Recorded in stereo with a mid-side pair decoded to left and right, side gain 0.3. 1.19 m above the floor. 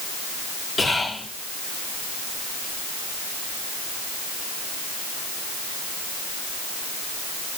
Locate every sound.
0.8 s whispering: 65° left, 1.4 m